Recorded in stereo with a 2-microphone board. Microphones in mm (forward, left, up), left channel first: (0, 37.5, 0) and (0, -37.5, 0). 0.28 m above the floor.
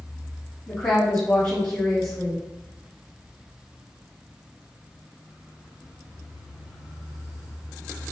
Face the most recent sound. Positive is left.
turn(degrees=35)  # may be behind; listen again after turning